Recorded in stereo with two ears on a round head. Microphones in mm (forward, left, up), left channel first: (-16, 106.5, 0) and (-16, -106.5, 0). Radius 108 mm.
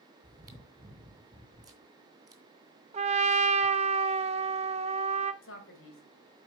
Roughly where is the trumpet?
Right.